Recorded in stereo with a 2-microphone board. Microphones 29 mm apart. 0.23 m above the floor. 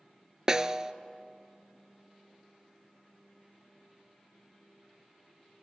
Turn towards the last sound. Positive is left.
turn(degrees=-25)  # may be behind; listen again after turning